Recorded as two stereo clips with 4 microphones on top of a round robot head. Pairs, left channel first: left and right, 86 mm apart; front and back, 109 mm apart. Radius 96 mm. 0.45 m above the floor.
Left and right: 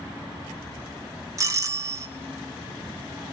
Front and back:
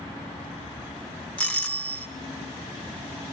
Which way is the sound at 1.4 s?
70° right.